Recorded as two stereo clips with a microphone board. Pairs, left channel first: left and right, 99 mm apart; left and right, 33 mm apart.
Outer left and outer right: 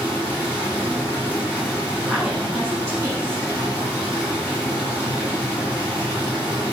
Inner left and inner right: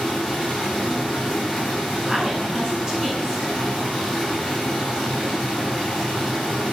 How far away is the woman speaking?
About 4.5 m.